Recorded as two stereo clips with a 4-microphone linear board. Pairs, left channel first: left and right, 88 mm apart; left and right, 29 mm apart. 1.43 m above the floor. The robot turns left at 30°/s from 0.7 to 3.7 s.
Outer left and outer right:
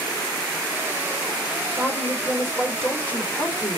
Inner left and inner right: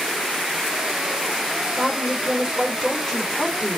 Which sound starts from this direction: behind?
A woman speaking, at 1.8 s.